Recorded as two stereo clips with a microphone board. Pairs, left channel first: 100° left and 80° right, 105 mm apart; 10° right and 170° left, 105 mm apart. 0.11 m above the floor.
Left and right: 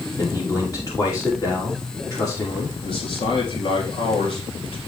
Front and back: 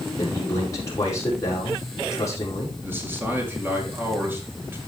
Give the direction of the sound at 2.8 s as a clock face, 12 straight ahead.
9 o'clock.